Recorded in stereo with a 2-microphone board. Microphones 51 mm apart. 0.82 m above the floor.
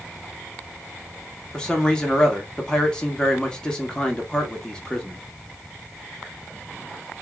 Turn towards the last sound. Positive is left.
turn(degrees=15)  # may be behind; listen again after turning